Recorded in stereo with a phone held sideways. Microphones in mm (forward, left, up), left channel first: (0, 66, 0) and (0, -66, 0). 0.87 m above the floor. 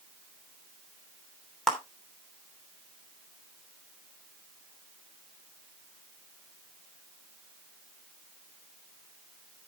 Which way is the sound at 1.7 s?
Centre (ahead or behind).